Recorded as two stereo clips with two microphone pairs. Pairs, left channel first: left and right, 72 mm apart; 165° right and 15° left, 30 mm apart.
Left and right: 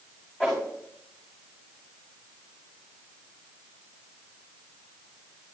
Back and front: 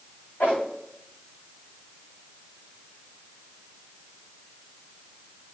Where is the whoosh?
165° left, 7 m.